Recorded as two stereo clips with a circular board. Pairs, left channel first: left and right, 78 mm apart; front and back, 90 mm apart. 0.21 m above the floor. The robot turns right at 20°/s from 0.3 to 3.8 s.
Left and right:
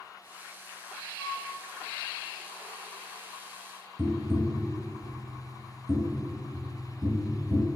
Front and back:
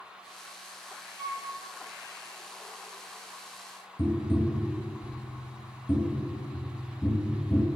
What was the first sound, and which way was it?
A flute, 150° left.